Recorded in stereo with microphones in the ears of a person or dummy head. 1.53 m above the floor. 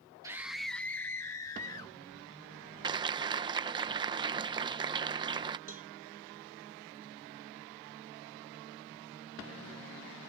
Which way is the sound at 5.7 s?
40° right (ahead or behind).